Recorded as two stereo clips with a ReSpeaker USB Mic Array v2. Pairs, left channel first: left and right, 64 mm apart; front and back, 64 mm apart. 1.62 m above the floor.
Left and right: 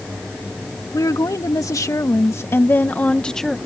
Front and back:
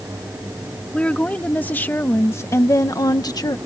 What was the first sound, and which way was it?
A woman speaking, 70° left.